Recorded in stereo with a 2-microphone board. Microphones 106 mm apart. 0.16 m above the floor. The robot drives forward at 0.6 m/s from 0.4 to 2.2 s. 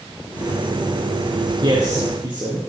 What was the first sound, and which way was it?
A man speaking, 45° right (ahead or behind).